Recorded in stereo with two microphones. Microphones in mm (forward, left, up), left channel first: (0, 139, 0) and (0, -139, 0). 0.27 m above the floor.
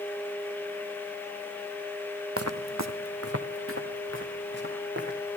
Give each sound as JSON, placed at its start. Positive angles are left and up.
{"t": 2.4, "sound": "footsteps", "side_deg": -55, "distance_m": 0.7}